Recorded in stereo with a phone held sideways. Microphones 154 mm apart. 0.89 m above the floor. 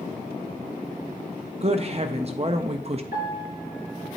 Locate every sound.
1.6 s a woman speaking: 40° right (ahead or behind), 0.5 m
3.1 s a piano: 80° left, 4.5 m